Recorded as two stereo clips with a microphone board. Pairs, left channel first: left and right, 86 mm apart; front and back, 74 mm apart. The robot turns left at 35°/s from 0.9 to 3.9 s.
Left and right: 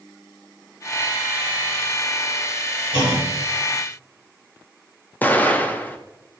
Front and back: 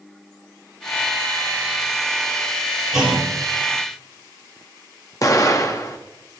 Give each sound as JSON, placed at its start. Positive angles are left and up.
{"t": 2.9, "sound": "a clunk", "azimuth_deg": 100, "distance_m": 2.5}
{"t": 5.2, "sound": "an explosion", "azimuth_deg": 25, "distance_m": 0.9}